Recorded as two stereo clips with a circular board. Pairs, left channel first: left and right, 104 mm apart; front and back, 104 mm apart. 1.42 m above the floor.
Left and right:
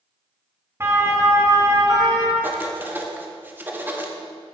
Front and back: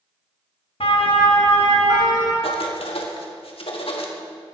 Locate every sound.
0.8 s a siren: 25° right, 2 m; by 2.3 s 45° right, 3.5 m
2.4 s writing: 20° right, 1.7 m